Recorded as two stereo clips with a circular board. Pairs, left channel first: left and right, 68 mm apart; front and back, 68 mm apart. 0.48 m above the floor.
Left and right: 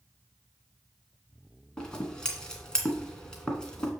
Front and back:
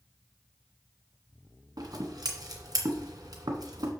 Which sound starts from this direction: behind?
Scissors, at 1.8 s.